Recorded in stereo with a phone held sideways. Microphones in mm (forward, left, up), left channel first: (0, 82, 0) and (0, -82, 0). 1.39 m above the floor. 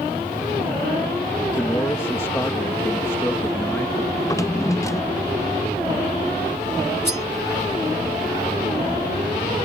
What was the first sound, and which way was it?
A man speaking, 15° left (ahead or behind).